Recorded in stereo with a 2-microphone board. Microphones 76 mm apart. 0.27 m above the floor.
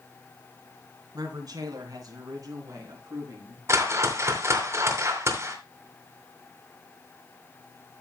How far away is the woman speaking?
About 3 m.